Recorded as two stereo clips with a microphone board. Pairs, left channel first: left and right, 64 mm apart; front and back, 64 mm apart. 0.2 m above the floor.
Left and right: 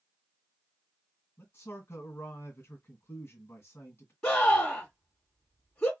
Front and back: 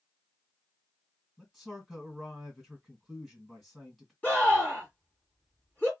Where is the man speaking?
90° left, 1.8 m.